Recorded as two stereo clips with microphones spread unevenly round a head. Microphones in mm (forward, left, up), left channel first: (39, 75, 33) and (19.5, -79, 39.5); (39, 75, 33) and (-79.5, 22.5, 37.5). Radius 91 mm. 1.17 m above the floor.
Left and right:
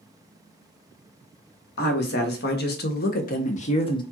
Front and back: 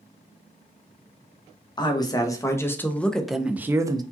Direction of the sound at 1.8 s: 80° left.